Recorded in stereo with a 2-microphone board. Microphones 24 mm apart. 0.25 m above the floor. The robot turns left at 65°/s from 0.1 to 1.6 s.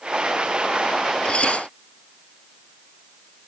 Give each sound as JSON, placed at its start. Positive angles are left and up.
{"t": 1.2, "sound": "dishes clattering", "side_deg": 50}